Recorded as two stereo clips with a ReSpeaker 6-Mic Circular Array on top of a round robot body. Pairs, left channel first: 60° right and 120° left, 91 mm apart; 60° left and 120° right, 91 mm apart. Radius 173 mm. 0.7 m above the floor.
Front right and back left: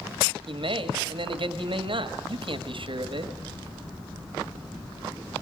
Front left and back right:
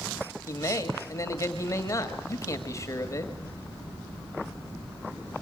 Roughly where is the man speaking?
Behind left.